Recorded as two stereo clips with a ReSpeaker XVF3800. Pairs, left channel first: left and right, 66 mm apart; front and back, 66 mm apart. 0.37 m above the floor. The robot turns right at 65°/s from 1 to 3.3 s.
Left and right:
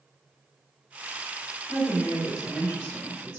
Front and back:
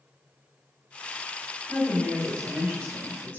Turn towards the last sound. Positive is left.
turn(degrees=-130)